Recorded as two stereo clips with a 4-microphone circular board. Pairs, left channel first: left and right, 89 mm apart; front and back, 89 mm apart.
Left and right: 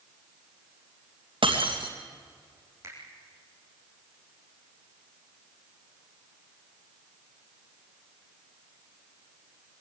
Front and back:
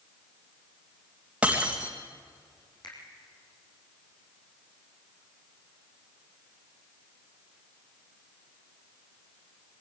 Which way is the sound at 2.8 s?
35° right.